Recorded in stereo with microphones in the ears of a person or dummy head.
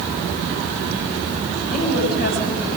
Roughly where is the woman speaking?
Left.